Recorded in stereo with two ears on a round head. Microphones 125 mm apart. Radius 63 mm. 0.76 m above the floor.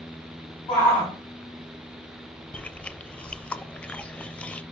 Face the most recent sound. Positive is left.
turn(degrees=10)  # may be behind; listen again after turning